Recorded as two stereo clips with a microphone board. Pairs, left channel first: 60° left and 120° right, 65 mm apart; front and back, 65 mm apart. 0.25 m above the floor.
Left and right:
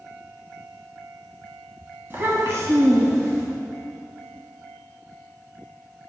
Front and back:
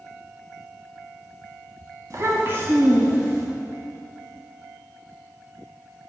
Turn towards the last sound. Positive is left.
turn(degrees=-100)